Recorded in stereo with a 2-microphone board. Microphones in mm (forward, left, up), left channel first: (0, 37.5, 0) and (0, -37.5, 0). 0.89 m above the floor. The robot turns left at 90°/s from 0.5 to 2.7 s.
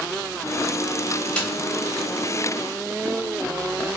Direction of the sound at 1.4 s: 15° left (ahead or behind).